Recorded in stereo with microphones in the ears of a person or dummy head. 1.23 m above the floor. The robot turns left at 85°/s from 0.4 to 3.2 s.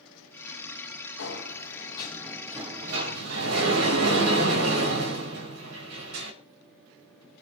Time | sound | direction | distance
1.2 | a sliding door | 95° left | 5 m